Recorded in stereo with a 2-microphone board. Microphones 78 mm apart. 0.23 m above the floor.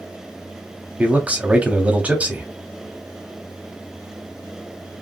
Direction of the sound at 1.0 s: 20° right (ahead or behind).